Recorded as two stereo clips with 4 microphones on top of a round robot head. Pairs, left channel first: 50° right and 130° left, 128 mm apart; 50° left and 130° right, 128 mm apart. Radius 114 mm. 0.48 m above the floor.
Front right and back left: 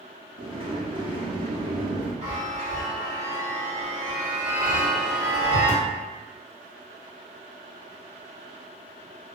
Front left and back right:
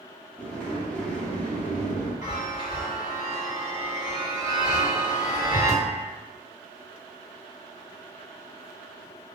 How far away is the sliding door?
About 1.0 m.